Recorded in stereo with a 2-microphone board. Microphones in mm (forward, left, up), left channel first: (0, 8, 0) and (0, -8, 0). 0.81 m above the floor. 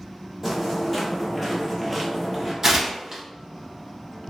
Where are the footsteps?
Centre (ahead or behind), 1.1 m; by 2.5 s 5° right (ahead or behind), 0.9 m.